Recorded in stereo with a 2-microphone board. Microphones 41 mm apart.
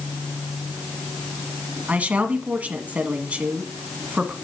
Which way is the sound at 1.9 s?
35° right (ahead or behind).